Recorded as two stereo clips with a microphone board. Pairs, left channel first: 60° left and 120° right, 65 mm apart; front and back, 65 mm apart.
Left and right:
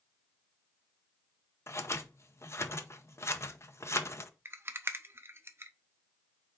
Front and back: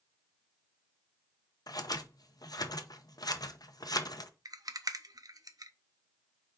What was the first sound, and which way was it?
Scissors, 15° left.